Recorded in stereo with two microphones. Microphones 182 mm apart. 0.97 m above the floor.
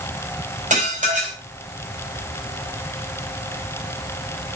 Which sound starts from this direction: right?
Dishes clattering, at 0.7 s.